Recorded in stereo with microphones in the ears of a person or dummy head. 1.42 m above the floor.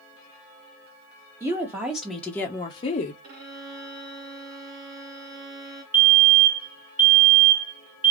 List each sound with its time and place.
1.4 s a woman speaking: 20° right (ahead or behind), 1.1 m; by 3.1 s 45° left (ahead or behind), 0.7 m
3.2 s a violin: 55° right (ahead or behind), 0.6 m
5.9 s a fire alarm: 10° right (ahead or behind), 0.7 m